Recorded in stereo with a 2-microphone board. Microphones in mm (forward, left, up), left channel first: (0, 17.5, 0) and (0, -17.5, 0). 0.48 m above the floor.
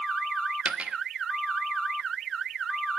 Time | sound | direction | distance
0.7 | a dropped coin | 40° right (ahead or behind) | 0.6 m